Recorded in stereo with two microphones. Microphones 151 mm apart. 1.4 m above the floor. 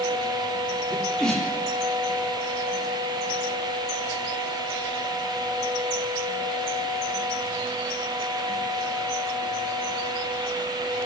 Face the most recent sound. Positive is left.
turn(degrees=5)  # may be behind; listen again after turning